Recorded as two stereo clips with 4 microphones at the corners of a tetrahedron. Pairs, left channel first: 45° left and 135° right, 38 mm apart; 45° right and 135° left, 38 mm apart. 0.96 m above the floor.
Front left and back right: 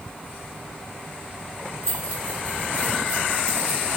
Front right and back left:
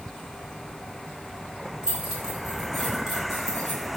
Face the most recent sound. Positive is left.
turn(degrees=35)